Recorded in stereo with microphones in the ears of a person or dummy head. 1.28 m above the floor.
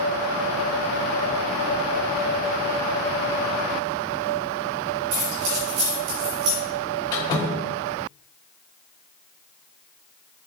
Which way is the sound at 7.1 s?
20° left (ahead or behind).